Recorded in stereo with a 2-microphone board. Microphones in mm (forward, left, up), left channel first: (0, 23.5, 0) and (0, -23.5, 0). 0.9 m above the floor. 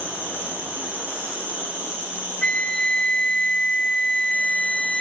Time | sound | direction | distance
0.0 | an insect | 35° right (ahead or behind) | 7 m
2.4 | a flute | 20° left (ahead or behind) | 0.6 m